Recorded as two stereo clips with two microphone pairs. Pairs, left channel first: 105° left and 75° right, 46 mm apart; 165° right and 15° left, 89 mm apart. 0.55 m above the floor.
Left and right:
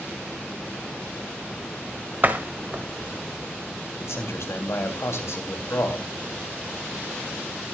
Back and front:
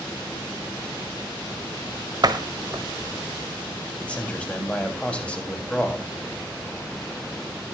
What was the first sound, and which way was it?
A door slam, 25° right.